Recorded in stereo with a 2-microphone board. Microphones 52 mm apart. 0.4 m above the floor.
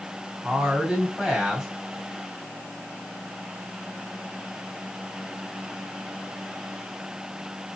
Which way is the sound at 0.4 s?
10° right (ahead or behind).